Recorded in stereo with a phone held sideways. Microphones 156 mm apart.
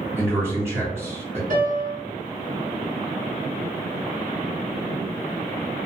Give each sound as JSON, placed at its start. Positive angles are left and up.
{"t": 0.2, "sound": "a man speaking", "side_deg": -15, "distance_m": 1.4}
{"t": 1.5, "sound": "a piano", "side_deg": -60, "distance_m": 1.4}